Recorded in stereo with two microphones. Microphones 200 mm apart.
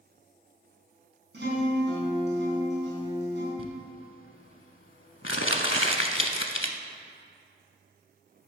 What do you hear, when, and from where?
1.3 s a guitar: 65° right (ahead or behind), 3.5 m
3.6 s crumpling: 85° left, 0.7 m